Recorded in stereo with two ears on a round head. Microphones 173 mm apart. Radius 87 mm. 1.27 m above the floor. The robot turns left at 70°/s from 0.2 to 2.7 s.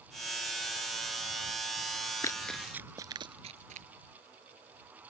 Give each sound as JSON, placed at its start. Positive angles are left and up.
{"t": 2.2, "sound": "running footsteps", "side_deg": 20}